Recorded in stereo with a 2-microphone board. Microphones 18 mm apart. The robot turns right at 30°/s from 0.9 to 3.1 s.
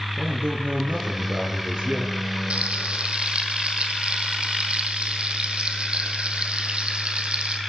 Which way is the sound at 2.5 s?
85° right.